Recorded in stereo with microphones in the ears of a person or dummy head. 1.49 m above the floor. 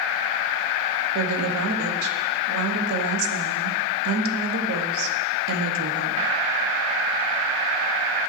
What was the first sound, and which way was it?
A woman speaking, 70° right (ahead or behind).